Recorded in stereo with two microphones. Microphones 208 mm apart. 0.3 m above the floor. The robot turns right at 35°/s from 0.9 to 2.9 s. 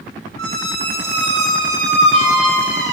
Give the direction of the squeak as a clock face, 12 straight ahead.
3 o'clock.